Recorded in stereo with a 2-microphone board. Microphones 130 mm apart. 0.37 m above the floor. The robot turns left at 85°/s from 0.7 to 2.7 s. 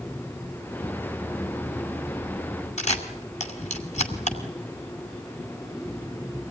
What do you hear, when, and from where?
2.8 s a camera shutter: 65° left (ahead or behind), 2.5 m